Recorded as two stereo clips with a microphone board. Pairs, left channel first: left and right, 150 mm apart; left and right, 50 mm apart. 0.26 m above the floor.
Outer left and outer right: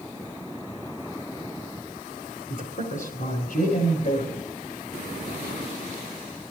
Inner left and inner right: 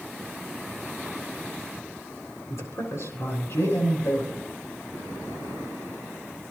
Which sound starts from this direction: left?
A man speaking, at 2.5 s.